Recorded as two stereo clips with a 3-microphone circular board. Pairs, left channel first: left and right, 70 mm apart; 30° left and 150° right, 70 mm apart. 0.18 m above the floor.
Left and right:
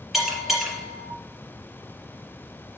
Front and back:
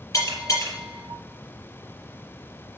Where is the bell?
5° right, 4 m.